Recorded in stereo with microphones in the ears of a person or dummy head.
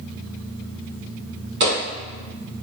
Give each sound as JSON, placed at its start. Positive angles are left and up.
{"t": 1.6, "sound": "footsteps", "side_deg": -25, "distance_m": 1.8}